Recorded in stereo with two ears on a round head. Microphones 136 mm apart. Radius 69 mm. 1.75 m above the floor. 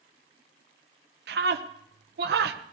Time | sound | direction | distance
1.3 | a scream | 75° right (ahead or behind) | 1.2 m